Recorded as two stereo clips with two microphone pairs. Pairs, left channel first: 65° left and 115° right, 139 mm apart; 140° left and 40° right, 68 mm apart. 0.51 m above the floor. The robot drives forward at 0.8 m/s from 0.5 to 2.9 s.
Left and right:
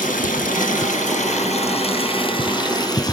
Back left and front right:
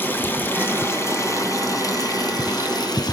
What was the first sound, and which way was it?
Running water, 80° left.